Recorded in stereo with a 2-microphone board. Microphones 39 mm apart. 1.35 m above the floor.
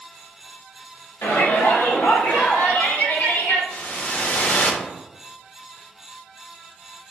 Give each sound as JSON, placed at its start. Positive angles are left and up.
{"t": 1.2, "sound": "a shout", "side_deg": 85, "distance_m": 1.4}
{"t": 3.7, "sound": "a whoosh", "side_deg": 45, "distance_m": 0.7}